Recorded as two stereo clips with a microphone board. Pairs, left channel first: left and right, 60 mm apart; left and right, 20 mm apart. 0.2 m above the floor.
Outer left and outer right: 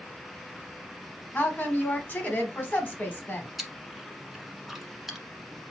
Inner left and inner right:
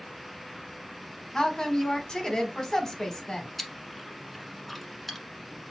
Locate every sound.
1.3 s a woman speaking: 25° left (ahead or behind), 1.4 m
3.6 s chewing: centre (ahead or behind), 1.0 m